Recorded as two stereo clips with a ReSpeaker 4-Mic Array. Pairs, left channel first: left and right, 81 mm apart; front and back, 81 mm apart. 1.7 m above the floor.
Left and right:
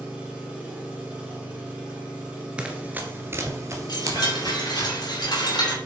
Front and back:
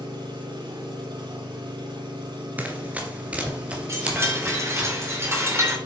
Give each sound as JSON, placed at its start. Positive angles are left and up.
{"t": 0.0, "sound": "an engine running", "azimuth_deg": -165, "distance_m": 3.0}
{"t": 2.6, "sound": "running footsteps", "azimuth_deg": -145, "distance_m": 1.7}
{"t": 3.9, "sound": "a chime", "azimuth_deg": 120, "distance_m": 3.5}